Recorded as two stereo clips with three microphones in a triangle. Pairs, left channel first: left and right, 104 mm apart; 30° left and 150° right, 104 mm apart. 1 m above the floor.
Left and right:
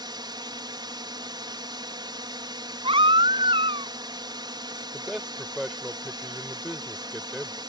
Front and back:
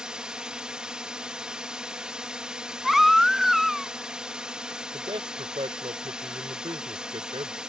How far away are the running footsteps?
No running footsteps in this recording.